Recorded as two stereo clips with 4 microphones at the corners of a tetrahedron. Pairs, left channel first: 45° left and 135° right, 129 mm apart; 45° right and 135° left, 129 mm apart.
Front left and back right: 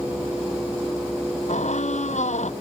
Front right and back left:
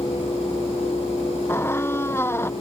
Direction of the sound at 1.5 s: 25° left.